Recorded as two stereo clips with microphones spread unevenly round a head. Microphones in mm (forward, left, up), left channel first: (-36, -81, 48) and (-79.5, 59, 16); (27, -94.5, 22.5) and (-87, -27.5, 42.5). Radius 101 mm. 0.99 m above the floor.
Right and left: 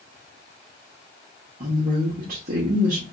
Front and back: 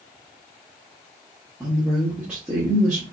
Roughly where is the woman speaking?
Ahead left.